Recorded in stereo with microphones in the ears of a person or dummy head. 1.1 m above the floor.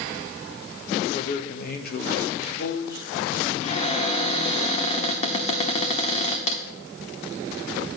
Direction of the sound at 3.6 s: 35° left (ahead or behind).